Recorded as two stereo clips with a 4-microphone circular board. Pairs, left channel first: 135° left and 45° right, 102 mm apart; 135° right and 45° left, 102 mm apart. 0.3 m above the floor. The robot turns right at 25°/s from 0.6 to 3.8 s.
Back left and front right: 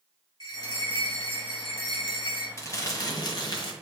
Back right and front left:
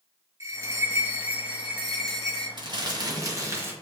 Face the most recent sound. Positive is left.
turn(degrees=110)